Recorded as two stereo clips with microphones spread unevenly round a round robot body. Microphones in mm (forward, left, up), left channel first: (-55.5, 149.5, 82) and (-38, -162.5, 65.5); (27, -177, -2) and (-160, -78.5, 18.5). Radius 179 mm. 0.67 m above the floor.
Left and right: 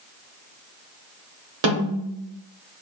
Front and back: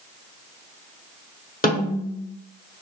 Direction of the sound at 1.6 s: 80° right.